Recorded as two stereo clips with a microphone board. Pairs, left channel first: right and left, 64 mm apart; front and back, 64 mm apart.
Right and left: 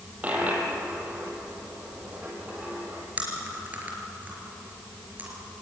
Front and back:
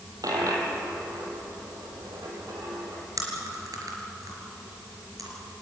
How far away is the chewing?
About 4.5 m.